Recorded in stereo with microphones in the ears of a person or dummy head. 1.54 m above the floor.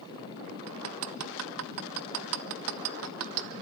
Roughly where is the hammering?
Right.